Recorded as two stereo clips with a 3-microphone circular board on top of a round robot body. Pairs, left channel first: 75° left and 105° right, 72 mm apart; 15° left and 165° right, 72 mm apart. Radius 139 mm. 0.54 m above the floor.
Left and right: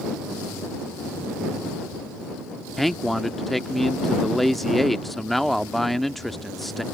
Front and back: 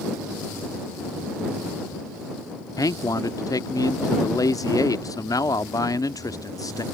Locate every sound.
2.8 s a man speaking: 15° right